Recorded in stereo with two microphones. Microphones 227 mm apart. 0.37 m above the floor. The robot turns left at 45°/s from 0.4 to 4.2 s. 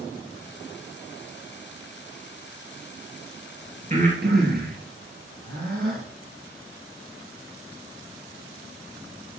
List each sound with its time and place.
3.9 s breathing: 30° right (ahead or behind), 3 m; by 6.0 s 45° right (ahead or behind), 3 m